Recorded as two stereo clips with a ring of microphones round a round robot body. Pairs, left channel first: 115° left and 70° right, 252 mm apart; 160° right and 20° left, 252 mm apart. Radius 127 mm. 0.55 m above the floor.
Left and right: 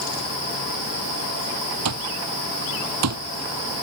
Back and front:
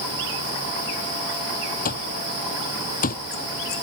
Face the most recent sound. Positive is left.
turn(degrees=-100)